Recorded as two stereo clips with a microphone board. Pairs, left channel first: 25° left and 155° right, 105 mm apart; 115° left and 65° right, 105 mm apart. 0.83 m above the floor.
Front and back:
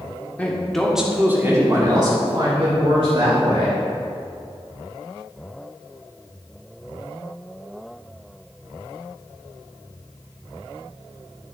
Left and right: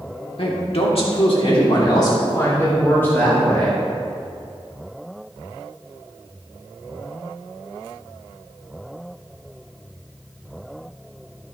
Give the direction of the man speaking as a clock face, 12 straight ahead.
9 o'clock.